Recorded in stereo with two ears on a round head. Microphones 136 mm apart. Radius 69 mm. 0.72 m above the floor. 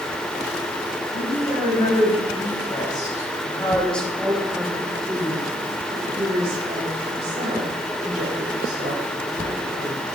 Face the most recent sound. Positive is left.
turn(degrees=-65)  # may be behind; listen again after turning